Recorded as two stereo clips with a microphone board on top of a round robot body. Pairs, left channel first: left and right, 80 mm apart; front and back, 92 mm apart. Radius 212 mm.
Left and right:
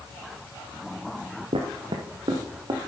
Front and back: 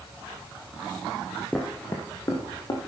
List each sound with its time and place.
1.5 s footsteps: 80° right, 0.8 m; by 2.9 s 50° right, 1.4 m